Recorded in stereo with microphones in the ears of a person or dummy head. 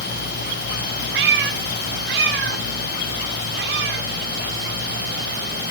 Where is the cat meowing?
65° right (ahead or behind), 1.5 m.